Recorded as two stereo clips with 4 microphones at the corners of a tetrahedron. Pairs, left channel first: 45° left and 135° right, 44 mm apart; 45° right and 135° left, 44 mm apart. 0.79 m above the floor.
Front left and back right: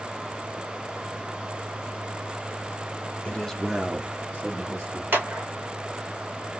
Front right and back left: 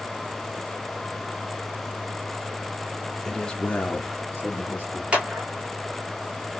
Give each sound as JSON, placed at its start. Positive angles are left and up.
{"t": 3.2, "sound": "a man speaking", "azimuth_deg": 35, "distance_m": 0.7}
{"t": 5.1, "sound": "a clap", "azimuth_deg": -165, "distance_m": 1.5}